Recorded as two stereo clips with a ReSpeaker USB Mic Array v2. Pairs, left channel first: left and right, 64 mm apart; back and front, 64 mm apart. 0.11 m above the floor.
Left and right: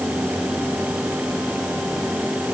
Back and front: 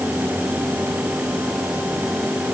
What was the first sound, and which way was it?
Only background noise.